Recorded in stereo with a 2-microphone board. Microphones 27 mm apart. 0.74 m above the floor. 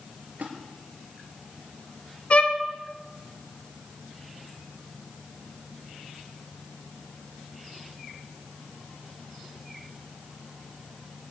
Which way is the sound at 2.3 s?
45° left (ahead or behind).